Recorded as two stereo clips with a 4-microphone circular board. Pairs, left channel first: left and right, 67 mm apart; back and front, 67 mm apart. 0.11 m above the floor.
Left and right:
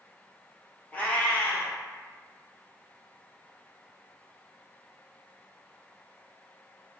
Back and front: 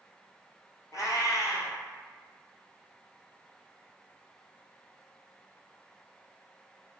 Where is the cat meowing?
155° left, 0.6 m.